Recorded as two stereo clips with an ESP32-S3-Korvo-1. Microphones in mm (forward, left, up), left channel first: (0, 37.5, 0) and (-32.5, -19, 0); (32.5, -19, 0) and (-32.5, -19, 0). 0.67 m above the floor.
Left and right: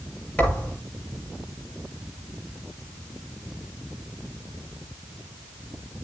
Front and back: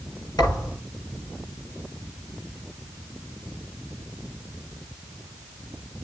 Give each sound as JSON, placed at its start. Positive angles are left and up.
{"t": 0.4, "sound": "a thud", "azimuth_deg": -10, "distance_m": 8.5}